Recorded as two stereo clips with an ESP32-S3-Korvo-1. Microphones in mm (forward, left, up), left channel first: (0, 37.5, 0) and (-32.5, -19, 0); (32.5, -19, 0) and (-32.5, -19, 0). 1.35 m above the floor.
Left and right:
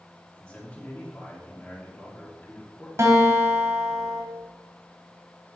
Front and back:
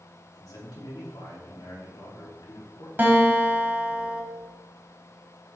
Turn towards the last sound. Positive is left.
turn(degrees=-130)